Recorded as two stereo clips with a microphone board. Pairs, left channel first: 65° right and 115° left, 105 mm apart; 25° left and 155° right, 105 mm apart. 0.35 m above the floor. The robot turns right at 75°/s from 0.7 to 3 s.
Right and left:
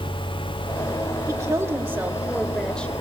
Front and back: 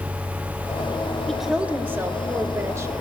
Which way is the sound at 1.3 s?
110° left.